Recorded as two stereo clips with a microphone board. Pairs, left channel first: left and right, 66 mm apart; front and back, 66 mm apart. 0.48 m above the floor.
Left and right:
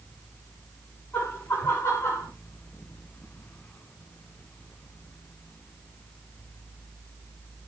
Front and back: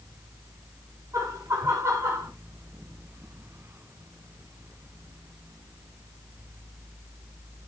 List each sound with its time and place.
1.1 s laughter: 150° left, 4.5 m; by 2.3 s 135° left, 4.5 m